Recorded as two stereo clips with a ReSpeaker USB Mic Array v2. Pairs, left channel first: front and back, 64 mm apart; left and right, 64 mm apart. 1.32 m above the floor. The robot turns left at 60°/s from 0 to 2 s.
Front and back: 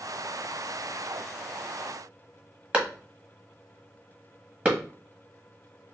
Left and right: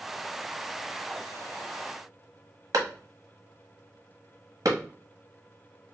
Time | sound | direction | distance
2.7 | a clap | 110° right | 1.3 m